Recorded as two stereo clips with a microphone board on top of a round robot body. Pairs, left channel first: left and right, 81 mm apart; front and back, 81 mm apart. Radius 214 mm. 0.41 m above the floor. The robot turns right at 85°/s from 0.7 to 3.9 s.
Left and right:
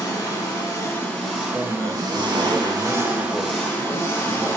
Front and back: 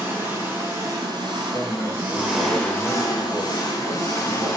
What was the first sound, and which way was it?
An engine running, 125° left.